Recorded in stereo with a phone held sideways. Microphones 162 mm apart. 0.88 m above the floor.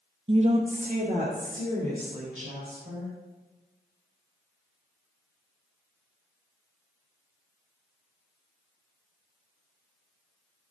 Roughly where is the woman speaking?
Right.